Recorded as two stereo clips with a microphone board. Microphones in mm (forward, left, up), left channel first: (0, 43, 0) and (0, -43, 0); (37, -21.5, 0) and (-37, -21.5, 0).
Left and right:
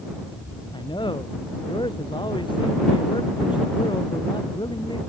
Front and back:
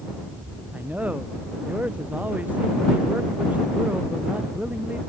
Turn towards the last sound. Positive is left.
turn(degrees=110)